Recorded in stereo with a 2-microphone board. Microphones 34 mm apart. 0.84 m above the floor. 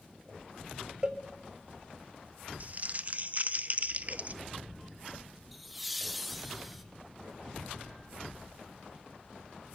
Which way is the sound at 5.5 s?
Centre (ahead or behind).